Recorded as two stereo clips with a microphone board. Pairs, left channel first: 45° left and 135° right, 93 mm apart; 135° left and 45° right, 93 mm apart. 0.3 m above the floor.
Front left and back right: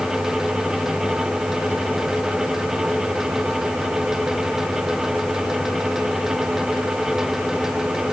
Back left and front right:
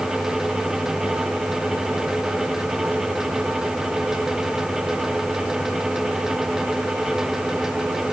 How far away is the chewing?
I don't hear chewing.